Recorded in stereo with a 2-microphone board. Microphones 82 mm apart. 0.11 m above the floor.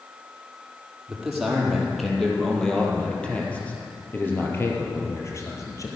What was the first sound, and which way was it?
A man speaking, 5° right (ahead or behind).